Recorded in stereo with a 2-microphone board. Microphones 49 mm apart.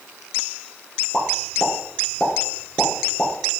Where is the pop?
20° left (ahead or behind), 4.5 m.